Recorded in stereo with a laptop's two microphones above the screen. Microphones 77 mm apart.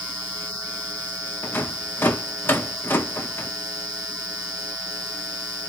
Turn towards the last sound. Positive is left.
turn(degrees=25)  # may be behind; listen again after turning